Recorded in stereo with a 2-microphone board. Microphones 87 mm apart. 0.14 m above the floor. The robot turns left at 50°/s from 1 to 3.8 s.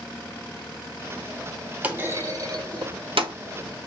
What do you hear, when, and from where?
1.8 s a clunk: 15° right (ahead or behind), 0.7 m; by 3.3 s 80° right, 0.7 m